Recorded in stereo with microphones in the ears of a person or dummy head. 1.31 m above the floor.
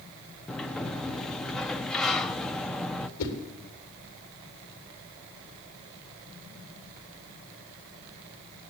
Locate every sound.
0.5 s a sliding door: 5° left (ahead or behind), 0.6 m
3.2 s a whoosh: 80° left, 3 m